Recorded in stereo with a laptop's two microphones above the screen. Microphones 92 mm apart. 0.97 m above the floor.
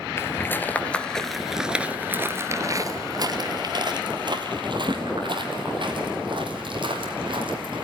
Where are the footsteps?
30° left (ahead or behind), 1.2 m; by 7.8 s 65° right (ahead or behind), 3.5 m.